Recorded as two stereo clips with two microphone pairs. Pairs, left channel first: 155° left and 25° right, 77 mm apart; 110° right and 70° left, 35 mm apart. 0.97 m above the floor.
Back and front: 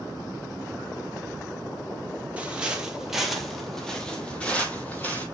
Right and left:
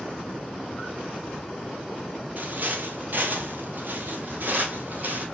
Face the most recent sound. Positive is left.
turn(degrees=95)